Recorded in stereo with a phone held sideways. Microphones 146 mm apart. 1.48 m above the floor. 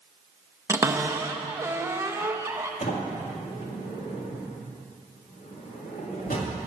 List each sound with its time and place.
0.7 s a cupboard door: 20° right (ahead or behind), 0.6 m
2.8 s a sliding door: 80° left, 2 m